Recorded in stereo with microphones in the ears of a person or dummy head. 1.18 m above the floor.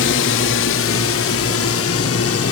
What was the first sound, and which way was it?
A drone, 60° left (ahead or behind).